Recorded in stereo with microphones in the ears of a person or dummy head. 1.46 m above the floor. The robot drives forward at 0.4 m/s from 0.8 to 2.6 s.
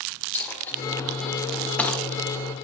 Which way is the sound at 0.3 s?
15° left (ahead or behind).